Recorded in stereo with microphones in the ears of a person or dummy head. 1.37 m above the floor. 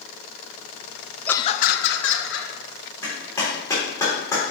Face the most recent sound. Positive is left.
turn(degrees=15)  # may be behind; listen again after turning